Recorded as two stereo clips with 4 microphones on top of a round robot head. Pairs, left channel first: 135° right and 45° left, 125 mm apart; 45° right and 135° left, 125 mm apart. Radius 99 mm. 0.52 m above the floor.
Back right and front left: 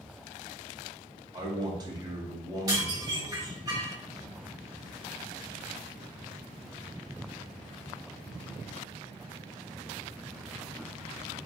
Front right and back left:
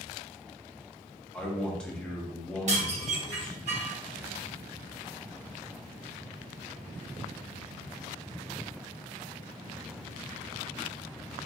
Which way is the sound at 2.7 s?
110° left.